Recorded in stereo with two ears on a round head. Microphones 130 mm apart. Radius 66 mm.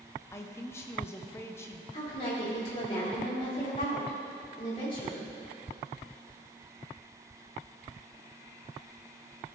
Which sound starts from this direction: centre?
A man speaking, at 0.3 s.